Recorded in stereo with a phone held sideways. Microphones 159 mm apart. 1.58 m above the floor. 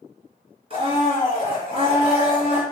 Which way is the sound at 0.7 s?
40° right (ahead or behind).